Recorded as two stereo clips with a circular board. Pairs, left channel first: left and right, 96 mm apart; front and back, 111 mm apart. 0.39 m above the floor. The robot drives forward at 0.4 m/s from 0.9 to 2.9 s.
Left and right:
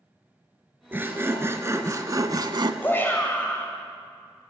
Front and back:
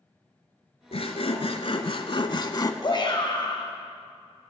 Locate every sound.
0.9 s sawing: 20° right, 1.1 m; by 2.7 s 55° right, 0.5 m
2.8 s a shout: 25° left, 2 m